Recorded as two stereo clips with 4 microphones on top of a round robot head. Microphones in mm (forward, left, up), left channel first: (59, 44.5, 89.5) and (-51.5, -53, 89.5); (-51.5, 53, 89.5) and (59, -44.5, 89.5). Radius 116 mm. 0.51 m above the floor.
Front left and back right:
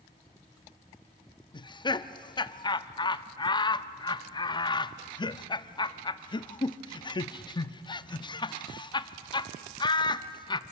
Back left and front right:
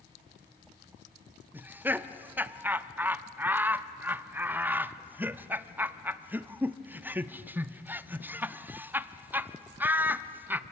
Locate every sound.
1.5 s laughter: 25° left, 0.7 m